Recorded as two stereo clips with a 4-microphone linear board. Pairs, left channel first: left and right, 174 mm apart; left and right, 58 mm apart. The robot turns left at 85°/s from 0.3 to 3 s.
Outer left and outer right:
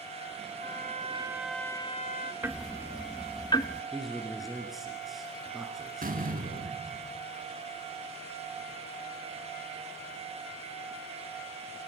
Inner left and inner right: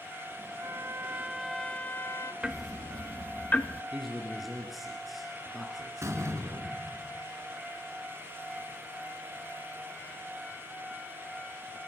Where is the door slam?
55° right (ahead or behind), 1.8 m.